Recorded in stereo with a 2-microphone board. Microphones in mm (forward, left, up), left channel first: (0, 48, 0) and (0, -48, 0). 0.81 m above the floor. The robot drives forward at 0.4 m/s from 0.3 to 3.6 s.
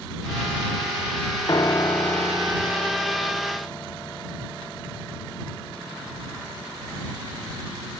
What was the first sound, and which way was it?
A piano, 40° left (ahead or behind).